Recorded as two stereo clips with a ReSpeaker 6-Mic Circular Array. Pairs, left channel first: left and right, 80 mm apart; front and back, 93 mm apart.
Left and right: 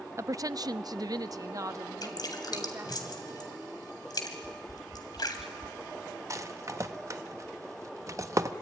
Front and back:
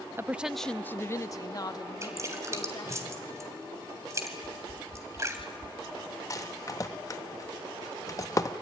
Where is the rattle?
45° right, 0.9 m.